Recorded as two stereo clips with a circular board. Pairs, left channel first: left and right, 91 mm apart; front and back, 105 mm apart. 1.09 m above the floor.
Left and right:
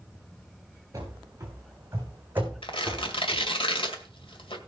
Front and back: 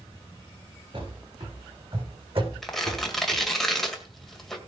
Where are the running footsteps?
145° right, 5 m; by 3.5 s straight behind, 2.5 m.